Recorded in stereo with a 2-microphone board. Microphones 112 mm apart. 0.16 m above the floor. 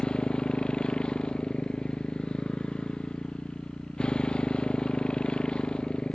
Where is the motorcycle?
5° left (ahead or behind).